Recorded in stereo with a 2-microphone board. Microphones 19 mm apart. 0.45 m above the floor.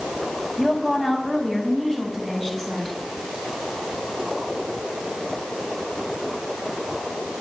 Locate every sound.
0.6 s a woman speaking: 25° left (ahead or behind), 3 m; by 3.0 s 15° left (ahead or behind), 5.5 m